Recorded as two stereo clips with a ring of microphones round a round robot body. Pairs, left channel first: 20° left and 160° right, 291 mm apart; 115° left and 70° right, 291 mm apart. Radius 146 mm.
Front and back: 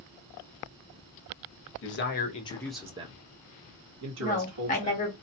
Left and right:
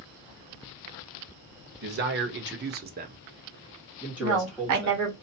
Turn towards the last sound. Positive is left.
turn(degrees=-40)